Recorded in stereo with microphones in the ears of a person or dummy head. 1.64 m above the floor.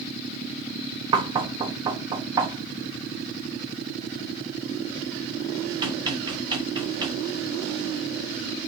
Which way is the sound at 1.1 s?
20° right (ahead or behind).